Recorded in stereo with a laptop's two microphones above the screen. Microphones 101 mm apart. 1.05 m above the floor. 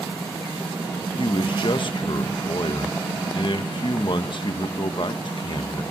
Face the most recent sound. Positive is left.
turn(degrees=55)  # may be behind; listen again after turning